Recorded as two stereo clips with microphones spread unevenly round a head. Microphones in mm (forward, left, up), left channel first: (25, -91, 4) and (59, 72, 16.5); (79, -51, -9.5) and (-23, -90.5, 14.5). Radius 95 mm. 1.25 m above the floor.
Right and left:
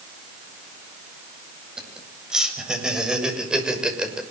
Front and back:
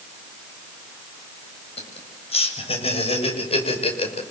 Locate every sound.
1.8 s laughter: 5° right, 8.5 m